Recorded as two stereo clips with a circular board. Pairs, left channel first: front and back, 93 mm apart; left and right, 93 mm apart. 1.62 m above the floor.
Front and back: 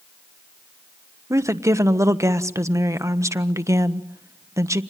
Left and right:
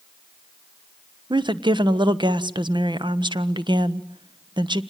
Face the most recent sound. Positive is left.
turn(degrees=-125)